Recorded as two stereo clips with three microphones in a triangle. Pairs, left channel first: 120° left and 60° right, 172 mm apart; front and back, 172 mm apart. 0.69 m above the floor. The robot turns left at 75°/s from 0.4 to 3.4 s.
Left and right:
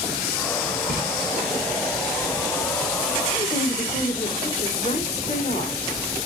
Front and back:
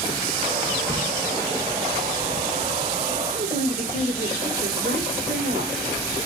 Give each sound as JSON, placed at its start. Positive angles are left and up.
{"t": 0.9, "sound": "a splash", "azimuth_deg": -75, "distance_m": 4.0}
{"t": 3.3, "sound": "a woman speaking", "azimuth_deg": 170, "distance_m": 2.5}